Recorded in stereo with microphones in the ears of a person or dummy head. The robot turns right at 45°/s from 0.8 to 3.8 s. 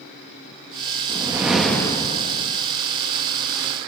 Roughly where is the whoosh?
Ahead.